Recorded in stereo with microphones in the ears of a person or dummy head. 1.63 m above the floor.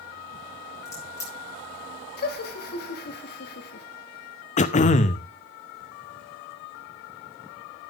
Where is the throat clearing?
35° left (ahead or behind), 0.5 m.